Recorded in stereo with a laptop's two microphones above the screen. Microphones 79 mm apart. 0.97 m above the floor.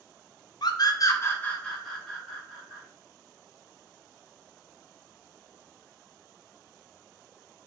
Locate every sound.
0.6 s a scream: 65° left (ahead or behind), 0.6 m; by 2.8 s 10° right (ahead or behind), 1.3 m